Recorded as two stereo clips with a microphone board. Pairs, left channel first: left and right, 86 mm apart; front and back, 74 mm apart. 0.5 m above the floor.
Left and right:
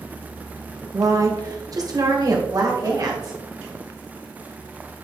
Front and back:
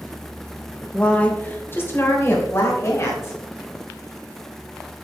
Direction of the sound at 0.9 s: 70° right.